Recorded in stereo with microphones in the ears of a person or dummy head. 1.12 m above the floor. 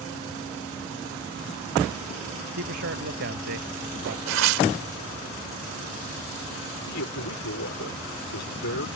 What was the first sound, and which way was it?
A man speaking, 55° right (ahead or behind).